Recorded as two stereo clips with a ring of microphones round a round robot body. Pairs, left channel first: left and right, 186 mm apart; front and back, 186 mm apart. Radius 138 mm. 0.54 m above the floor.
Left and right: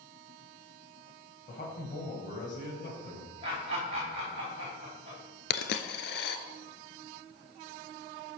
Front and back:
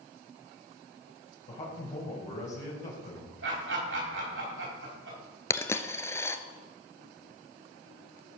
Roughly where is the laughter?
Behind right.